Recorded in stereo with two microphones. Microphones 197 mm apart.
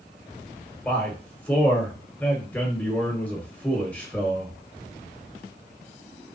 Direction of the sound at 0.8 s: 5° left (ahead or behind).